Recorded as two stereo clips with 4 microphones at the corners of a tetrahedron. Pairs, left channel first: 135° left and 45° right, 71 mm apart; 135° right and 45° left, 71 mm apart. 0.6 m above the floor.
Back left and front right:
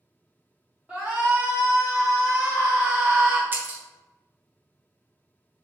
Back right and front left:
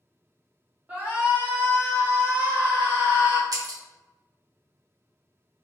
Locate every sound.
0.9 s a shout: 5° left, 1.1 m
3.5 s breaking glass: 20° left, 0.6 m